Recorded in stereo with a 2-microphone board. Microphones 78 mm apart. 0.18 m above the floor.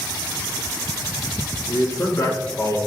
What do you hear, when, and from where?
1.7 s a man speaking: 35° left (ahead or behind), 1.8 m; by 2.8 s 50° left (ahead or behind), 2.5 m